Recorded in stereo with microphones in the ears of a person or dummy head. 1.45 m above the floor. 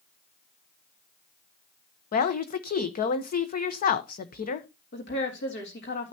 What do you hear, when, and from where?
2.1 s a woman speaking: 45° left (ahead or behind), 1.1 m
4.9 s a woman speaking: 55° left (ahead or behind), 3 m